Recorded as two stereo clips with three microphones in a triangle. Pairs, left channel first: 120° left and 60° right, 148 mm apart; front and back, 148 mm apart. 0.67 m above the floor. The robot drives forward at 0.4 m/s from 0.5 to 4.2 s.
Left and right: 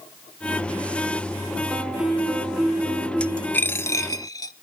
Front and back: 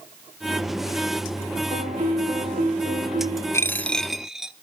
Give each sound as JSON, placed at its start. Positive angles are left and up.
{"t": 1.7, "sound": "a piano", "azimuth_deg": -145, "distance_m": 2.5}
{"t": 3.5, "sound": "a dropped coin", "azimuth_deg": 55, "distance_m": 0.7}